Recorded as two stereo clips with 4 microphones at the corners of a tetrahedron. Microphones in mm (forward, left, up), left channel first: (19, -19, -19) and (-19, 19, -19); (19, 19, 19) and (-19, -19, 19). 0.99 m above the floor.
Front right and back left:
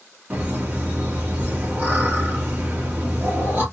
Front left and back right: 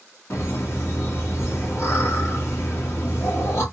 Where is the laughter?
80° left, 1.8 m.